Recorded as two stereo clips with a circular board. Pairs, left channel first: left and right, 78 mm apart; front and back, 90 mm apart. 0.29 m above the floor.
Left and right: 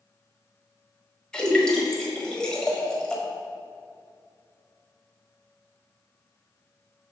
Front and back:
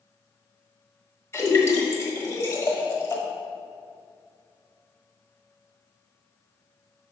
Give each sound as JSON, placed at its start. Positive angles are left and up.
{"t": 1.3, "sound": "a splash", "azimuth_deg": 15, "distance_m": 1.2}